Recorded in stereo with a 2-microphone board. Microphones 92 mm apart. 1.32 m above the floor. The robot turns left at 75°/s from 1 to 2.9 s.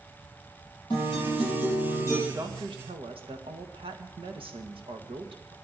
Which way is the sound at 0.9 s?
115° left.